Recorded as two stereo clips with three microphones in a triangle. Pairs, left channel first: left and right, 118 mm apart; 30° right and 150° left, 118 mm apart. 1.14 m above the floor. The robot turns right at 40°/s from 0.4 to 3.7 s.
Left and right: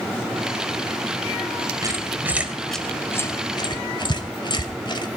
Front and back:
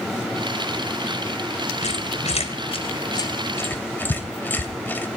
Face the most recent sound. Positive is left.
turn(degrees=40)